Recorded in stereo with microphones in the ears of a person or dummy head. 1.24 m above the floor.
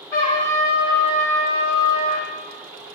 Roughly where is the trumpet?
Centre.